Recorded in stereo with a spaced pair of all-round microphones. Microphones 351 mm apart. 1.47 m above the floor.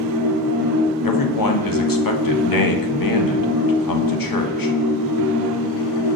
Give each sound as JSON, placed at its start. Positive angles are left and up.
{"t": 0.0, "sound": "a machine running", "side_deg": -75, "distance_m": 0.8}
{"t": 1.0, "sound": "a man speaking", "side_deg": 70, "distance_m": 0.6}